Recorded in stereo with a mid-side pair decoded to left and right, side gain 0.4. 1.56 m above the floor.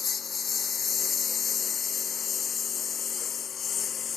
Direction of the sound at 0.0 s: 50° left.